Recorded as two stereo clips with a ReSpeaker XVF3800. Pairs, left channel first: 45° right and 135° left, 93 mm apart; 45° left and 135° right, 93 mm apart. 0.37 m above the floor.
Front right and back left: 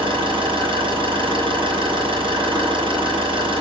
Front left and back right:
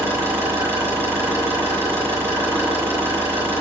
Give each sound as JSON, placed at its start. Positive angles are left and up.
{"t": 0.0, "sound": "an engine running", "azimuth_deg": 155, "distance_m": 8.5}